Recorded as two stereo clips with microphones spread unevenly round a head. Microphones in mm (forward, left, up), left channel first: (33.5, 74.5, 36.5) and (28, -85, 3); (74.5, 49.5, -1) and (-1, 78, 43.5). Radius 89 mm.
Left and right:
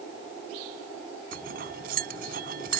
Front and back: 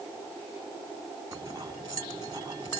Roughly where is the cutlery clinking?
Behind right.